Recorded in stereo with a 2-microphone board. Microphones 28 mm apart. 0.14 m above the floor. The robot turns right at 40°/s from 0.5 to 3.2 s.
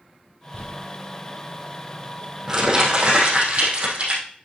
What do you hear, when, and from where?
0.5 s crumpling: 60° left (ahead or behind), 3 m; by 4.2 s 40° right (ahead or behind), 3 m